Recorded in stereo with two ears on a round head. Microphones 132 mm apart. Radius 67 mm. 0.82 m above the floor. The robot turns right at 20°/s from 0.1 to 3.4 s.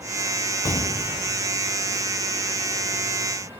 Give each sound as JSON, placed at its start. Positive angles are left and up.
{"t": 0.7, "sound": "an explosion", "side_deg": 20}